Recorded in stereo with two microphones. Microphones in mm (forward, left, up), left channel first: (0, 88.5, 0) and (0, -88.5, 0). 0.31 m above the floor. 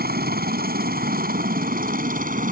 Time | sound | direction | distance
0.0 | a helicopter | 60° right (ahead or behind) | ?